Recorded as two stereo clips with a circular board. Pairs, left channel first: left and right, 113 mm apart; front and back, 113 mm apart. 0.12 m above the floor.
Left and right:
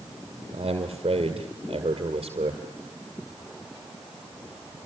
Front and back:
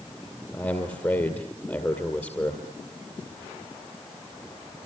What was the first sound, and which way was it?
A man speaking, 65° right.